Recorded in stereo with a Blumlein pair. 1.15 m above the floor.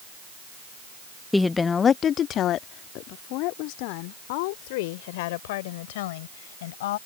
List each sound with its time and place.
1.3 s a woman speaking: 5° left; by 7.0 s 55° left